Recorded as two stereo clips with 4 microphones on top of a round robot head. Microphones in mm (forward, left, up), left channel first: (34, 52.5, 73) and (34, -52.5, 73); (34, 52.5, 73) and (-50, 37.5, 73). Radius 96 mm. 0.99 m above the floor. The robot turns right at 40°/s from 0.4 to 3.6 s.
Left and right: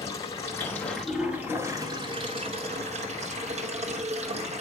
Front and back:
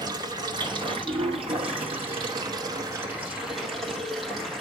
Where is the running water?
150° left, 2 m; by 4.6 s 80° right, 2 m.